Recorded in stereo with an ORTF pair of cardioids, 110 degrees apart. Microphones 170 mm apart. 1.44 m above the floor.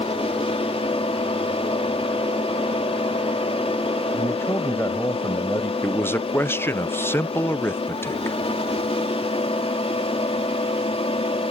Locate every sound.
0.0 s a fan: 35° left
4.1 s a man speaking: 15° left
5.8 s a man speaking: 15° left